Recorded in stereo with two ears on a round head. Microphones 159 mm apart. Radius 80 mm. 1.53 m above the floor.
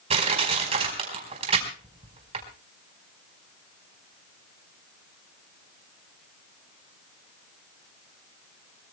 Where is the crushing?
35° right (ahead or behind), 4.5 m.